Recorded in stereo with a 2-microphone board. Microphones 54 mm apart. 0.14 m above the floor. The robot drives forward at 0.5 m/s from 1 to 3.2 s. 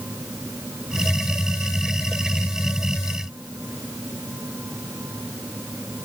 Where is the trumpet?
No trumpet in this recording.